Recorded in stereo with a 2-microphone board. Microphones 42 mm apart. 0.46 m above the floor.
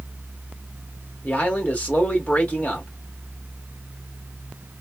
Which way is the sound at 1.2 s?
35° left (ahead or behind).